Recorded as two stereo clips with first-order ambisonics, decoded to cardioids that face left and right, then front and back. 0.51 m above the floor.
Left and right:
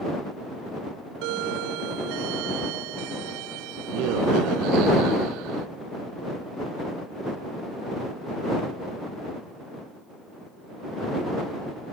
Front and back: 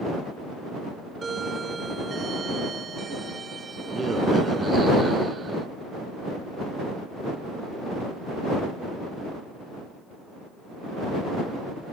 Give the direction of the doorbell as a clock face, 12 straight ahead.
4 o'clock.